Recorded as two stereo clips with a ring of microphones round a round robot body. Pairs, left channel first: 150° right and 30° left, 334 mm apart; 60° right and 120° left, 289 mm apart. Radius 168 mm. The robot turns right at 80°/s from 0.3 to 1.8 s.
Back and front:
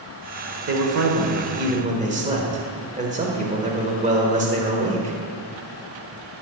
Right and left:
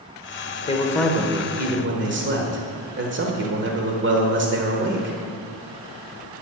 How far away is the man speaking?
About 1.4 m.